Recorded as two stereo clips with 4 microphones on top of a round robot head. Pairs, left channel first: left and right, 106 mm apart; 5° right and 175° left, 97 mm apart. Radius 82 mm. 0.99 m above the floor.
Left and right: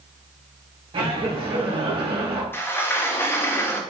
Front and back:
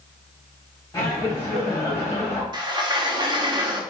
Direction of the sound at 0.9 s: 65° right.